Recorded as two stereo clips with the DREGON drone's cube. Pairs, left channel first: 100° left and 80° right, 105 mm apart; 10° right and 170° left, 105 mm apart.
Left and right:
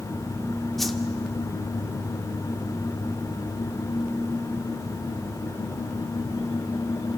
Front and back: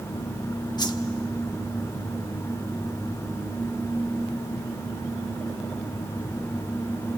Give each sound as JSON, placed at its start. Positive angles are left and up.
{"t": 0.8, "sound": "a whoosh", "azimuth_deg": 15, "distance_m": 1.1}